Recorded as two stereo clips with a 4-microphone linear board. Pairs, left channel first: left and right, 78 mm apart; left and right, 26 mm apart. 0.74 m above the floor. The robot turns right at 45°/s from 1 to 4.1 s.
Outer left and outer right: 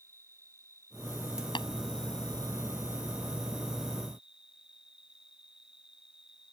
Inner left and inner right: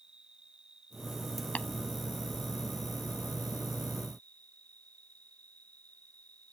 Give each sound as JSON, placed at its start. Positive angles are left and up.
{"t": 0.0, "sound": "an insect", "azimuth_deg": -40}
{"t": 1.6, "sound": "tapping", "side_deg": 80}